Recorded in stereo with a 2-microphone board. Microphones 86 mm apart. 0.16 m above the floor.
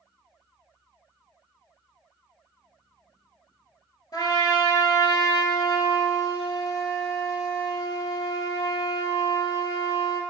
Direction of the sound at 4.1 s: 50° left (ahead or behind).